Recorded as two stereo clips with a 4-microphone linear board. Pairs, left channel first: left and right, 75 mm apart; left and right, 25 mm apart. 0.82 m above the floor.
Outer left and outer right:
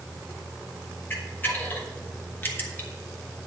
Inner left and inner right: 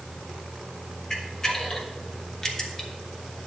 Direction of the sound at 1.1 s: 30° left (ahead or behind).